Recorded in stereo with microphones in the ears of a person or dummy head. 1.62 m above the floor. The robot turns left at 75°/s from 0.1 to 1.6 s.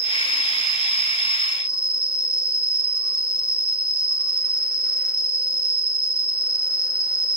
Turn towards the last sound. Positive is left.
turn(degrees=-140)